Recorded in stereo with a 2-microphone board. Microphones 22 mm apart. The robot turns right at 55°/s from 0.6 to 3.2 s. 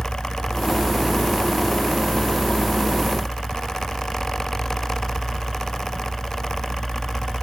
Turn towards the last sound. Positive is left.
turn(degrees=180)